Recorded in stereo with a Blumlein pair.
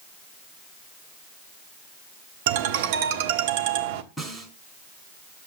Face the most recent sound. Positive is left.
turn(degrees=0)